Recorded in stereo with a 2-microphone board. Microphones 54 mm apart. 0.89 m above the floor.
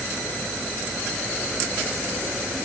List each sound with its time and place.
Only background noise.